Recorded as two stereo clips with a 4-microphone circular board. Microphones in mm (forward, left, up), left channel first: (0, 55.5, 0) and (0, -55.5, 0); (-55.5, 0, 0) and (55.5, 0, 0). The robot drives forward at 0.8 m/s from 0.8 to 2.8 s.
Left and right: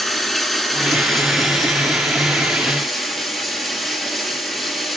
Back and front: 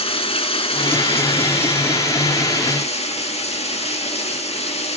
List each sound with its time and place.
0.0 s running water: 175° left, 2.5 m; by 5.0 s straight behind, 4 m